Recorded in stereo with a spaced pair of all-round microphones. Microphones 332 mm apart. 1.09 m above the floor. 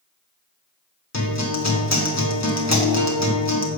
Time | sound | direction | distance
1.1 | a guitar | 50° left (ahead or behind) | 1.5 m